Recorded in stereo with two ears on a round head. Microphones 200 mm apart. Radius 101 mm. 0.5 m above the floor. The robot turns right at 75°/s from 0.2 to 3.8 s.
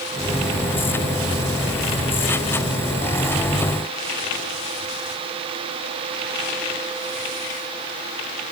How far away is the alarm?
I don't hear an alarm.